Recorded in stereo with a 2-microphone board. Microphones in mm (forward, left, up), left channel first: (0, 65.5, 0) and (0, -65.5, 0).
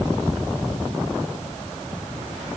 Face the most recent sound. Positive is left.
No sound to turn to.